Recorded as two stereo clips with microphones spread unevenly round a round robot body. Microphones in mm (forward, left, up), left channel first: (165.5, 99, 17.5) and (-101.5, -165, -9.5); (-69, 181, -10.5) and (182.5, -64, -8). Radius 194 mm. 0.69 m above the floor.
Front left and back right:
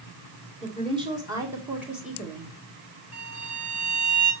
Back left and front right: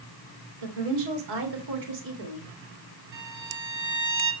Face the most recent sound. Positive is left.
turn(degrees=-65)